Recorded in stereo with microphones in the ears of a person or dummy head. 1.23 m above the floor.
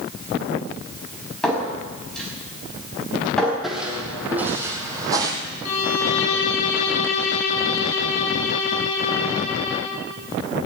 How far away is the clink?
About 4.5 m.